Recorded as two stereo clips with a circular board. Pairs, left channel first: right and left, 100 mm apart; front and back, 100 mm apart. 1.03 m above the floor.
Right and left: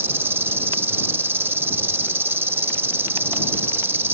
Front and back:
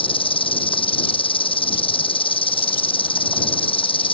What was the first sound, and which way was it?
An insect, 25° left.